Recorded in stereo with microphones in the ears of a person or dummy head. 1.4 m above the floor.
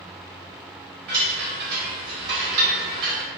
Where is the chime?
55° right (ahead or behind), 1.0 m.